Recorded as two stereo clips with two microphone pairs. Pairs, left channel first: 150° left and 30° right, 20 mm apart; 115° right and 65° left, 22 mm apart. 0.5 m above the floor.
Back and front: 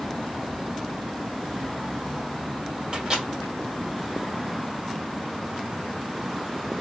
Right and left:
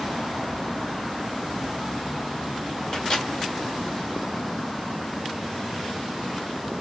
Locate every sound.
2.9 s a microwave: 75° right, 1.3 m